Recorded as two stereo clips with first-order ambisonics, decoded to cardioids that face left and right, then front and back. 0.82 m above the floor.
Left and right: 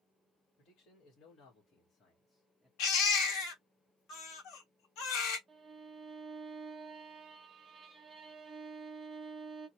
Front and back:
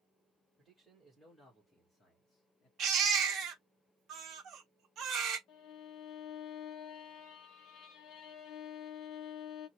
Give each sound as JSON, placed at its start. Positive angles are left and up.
{"t": 0.6, "sound": "a man speaking", "azimuth_deg": 100, "distance_m": 1.4}
{"t": 2.8, "sound": "a baby crying", "azimuth_deg": 125, "distance_m": 1.0}
{"t": 5.5, "sound": "a violin", "azimuth_deg": -15, "distance_m": 1.1}